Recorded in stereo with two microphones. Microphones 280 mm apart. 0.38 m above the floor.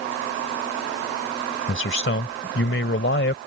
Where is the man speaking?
45° left (ahead or behind).